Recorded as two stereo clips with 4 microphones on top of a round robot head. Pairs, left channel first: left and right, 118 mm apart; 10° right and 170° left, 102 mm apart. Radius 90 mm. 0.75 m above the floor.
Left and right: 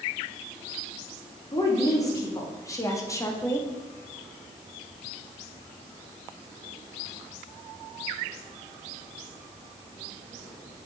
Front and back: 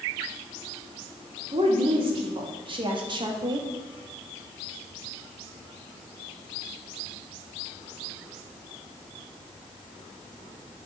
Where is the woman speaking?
150° left, 2 m.